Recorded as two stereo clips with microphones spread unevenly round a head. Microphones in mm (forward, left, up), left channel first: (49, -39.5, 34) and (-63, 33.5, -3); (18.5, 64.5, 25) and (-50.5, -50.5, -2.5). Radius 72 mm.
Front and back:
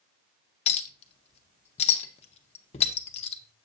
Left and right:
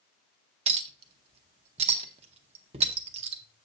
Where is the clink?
65° right, 0.6 m.